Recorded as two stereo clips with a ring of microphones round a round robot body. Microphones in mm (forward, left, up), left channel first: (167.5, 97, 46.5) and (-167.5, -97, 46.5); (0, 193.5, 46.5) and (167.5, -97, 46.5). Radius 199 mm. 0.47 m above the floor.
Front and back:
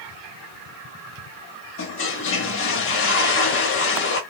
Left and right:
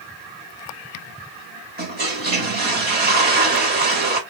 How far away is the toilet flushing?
About 1.0 m.